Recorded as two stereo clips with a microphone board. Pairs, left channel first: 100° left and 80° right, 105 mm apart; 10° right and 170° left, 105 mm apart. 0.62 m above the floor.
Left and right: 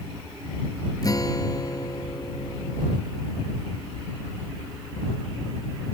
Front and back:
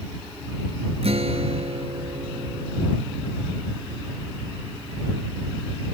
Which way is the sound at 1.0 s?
155° left.